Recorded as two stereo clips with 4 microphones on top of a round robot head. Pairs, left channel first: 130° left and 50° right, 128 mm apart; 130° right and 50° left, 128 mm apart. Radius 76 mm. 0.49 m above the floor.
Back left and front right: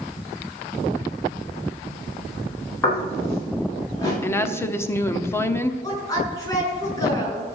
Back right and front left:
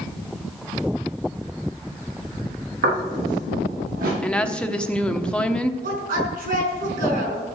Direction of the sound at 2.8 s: 55° left.